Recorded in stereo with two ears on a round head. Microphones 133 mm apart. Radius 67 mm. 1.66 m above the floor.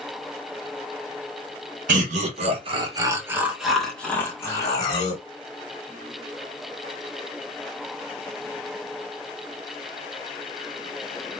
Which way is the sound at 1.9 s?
55° right (ahead or behind).